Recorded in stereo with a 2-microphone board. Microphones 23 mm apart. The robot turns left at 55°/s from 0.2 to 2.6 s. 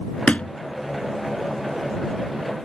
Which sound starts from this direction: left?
A thud, at 0.3 s.